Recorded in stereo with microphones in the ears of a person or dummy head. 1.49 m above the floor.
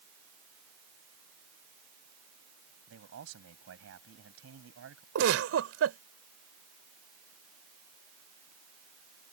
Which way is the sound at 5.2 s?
85° right.